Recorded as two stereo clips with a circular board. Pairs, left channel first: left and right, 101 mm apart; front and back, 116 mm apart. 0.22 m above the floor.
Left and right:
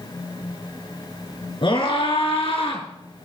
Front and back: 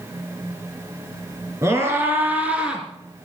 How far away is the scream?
About 3 m.